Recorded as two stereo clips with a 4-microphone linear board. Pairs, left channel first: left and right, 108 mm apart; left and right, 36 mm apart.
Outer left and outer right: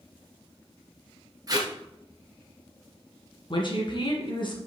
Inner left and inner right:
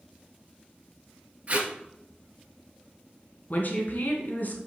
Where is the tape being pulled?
35° right (ahead or behind), 1.4 m.